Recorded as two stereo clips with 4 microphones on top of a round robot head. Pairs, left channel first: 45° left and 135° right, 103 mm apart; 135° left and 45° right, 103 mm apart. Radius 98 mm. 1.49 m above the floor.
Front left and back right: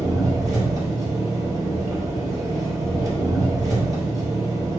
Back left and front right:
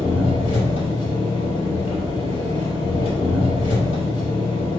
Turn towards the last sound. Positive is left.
turn(degrees=170)